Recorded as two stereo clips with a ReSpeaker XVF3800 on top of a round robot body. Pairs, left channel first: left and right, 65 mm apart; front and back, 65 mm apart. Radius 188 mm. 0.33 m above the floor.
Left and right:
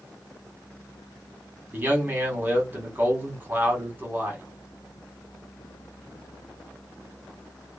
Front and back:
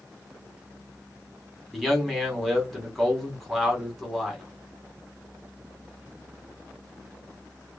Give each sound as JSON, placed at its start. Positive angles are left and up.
{"t": 1.7, "sound": "a man speaking", "azimuth_deg": -85, "distance_m": 1.5}